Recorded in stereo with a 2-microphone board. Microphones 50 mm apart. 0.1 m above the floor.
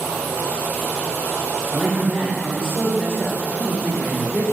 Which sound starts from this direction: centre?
A man speaking, at 1.7 s.